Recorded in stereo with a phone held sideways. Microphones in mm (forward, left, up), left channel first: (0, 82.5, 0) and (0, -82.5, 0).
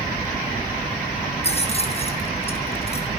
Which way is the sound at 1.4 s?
40° left (ahead or behind).